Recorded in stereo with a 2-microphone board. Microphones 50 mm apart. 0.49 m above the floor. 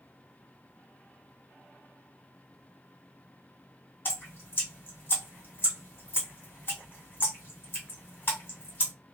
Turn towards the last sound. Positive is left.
turn(degrees=40)  # may be behind; listen again after turning